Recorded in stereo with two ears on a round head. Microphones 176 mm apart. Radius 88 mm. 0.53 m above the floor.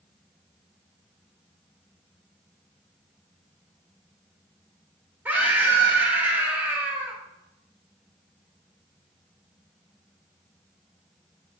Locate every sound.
5.2 s a scream: 10° right (ahead or behind), 1.3 m